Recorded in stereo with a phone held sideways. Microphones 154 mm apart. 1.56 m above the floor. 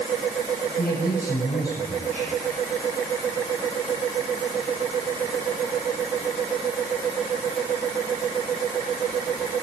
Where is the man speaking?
85° left, 8 m.